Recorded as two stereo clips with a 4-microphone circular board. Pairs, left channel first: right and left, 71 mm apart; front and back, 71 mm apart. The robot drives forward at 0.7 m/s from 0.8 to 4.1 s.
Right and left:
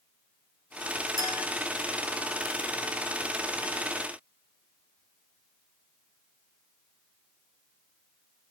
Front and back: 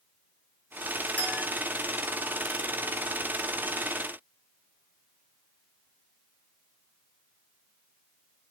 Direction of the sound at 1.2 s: 65° left.